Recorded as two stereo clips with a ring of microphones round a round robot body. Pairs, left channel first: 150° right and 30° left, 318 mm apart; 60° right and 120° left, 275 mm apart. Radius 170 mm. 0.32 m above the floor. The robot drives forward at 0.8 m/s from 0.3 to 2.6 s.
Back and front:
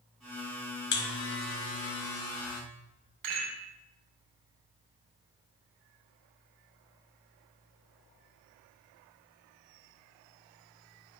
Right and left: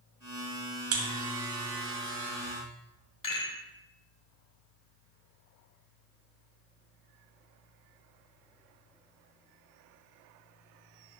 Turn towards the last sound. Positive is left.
turn(degrees=5)